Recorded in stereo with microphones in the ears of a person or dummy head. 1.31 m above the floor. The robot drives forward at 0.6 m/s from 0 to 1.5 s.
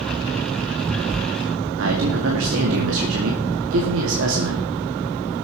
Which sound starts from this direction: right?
A man speaking, at 1.8 s.